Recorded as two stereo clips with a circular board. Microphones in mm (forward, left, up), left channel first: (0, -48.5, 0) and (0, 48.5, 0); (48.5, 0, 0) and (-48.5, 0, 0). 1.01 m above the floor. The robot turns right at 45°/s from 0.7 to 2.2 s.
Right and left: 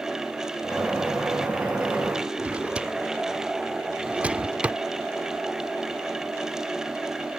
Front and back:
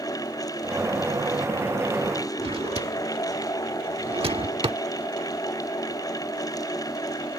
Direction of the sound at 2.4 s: 165° left.